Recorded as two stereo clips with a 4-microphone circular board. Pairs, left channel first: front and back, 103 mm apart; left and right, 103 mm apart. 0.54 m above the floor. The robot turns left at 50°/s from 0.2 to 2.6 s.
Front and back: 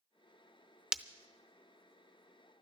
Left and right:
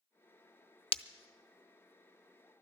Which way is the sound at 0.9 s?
100° left.